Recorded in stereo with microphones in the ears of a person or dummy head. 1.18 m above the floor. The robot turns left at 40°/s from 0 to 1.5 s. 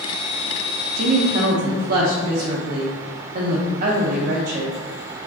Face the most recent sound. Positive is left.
turn(degrees=-55)  # may be behind; listen again after turning